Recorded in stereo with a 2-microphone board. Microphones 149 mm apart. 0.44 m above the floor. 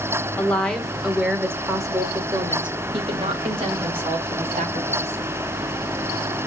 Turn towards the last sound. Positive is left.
turn(degrees=-45)  # may be behind; listen again after turning